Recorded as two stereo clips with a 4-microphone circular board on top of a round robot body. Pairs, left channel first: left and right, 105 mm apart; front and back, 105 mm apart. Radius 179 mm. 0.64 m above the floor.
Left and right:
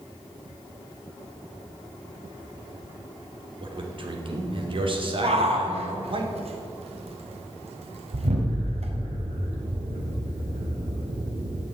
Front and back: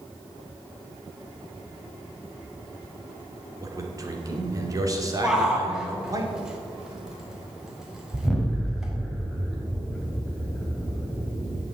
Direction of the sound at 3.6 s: 125° right.